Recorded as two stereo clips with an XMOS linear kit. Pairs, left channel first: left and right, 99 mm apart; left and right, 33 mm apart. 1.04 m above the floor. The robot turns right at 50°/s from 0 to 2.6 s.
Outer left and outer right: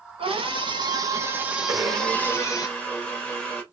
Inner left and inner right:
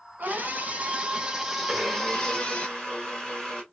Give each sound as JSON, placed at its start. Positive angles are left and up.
{"t": 0.2, "sound": "a scream", "azimuth_deg": -80, "distance_m": 0.9}
{"t": 1.7, "sound": "a blender", "azimuth_deg": -30, "distance_m": 1.5}